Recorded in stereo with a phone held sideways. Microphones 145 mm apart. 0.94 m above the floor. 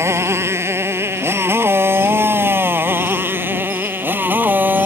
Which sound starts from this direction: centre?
A motorcycle, at 0.0 s.